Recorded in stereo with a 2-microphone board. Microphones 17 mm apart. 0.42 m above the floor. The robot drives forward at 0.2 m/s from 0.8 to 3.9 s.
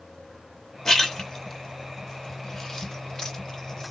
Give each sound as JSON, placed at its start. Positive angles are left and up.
{"t": 0.8, "sound": "a splash", "side_deg": 35, "distance_m": 1.1}